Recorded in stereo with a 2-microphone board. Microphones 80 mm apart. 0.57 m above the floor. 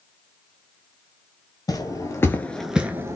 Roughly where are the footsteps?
Left.